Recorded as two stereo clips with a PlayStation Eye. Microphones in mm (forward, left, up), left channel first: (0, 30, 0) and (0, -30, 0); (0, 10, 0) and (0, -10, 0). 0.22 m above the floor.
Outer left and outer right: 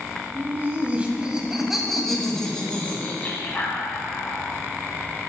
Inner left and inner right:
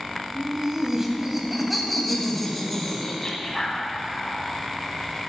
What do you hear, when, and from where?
0.3 s laughter: 35° right (ahead or behind), 1.7 m; by 4.4 s 40° left (ahead or behind), 2 m